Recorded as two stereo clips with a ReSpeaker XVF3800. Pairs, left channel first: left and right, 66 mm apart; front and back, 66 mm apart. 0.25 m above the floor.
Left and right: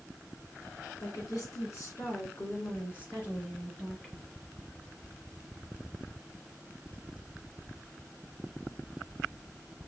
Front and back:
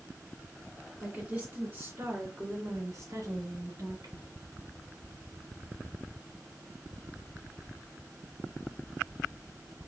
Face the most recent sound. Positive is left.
turn(degrees=165)